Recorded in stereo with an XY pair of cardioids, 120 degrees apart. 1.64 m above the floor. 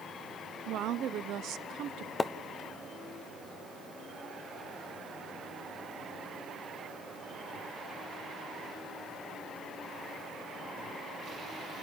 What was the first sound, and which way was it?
A woman speaking, 70° right.